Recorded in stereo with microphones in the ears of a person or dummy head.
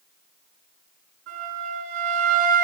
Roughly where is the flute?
Right.